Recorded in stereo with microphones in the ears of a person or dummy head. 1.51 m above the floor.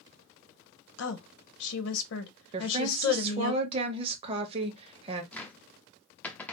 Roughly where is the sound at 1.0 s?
Left.